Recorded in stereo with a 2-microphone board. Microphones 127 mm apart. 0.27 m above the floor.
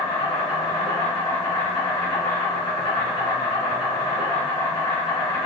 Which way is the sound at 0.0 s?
40° left (ahead or behind).